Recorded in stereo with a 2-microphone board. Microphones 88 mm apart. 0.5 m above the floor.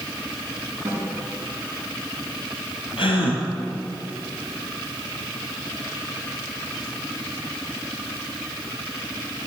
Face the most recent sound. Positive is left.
turn(degrees=75)  # may be behind; listen again after turning